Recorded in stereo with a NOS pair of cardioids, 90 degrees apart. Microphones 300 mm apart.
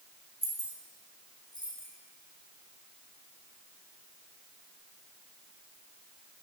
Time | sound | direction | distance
0.4 | keys jangling | 20° right | 1.4 m